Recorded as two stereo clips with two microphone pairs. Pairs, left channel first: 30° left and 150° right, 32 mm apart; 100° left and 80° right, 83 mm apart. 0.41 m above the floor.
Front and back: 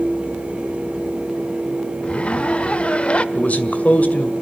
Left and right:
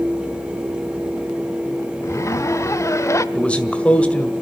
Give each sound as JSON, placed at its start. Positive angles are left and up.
{"t": 2.0, "sound": "a zipper", "azimuth_deg": 65, "distance_m": 0.7}
{"t": 3.4, "sound": "a man speaking", "azimuth_deg": 30, "distance_m": 1.9}